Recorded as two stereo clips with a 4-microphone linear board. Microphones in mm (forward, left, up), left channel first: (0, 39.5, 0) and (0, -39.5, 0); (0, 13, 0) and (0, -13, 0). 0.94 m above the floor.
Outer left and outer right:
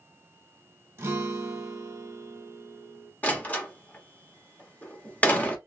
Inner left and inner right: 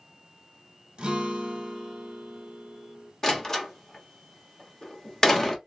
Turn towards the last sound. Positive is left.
turn(degrees=20)  # may be behind; listen again after turning